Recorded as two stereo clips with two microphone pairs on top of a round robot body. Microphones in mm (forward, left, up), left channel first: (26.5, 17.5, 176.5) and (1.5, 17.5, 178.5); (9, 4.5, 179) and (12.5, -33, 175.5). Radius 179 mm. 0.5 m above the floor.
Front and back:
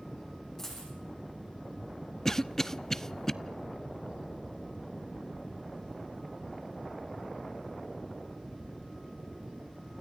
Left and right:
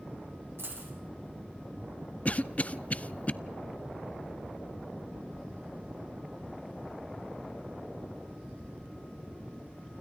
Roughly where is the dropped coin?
Right.